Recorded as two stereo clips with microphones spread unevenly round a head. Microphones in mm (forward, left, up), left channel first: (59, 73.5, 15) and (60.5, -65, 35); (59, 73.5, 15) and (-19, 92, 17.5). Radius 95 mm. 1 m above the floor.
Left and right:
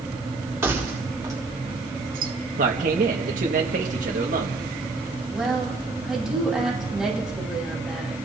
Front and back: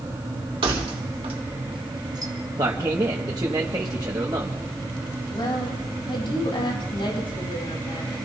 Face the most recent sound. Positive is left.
turn(degrees=-5)